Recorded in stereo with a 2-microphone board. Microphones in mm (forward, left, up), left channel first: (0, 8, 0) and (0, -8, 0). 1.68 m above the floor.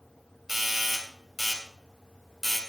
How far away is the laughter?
No laughter in this recording.